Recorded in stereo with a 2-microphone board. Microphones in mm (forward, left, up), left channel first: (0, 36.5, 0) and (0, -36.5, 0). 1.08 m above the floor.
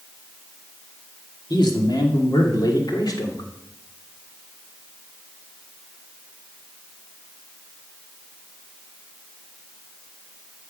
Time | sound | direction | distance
1.5 | a man speaking | 80° left | 2.5 m